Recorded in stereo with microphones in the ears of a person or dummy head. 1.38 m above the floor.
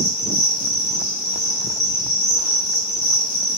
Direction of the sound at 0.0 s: 30° left (ahead or behind).